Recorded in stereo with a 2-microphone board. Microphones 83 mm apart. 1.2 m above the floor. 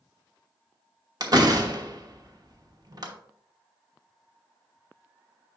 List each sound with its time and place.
1.2 s a door slam: 50° right (ahead or behind), 1.1 m